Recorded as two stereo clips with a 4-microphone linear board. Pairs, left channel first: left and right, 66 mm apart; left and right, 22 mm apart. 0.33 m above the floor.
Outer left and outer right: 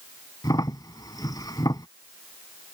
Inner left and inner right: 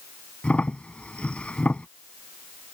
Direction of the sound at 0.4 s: 70° left (ahead or behind).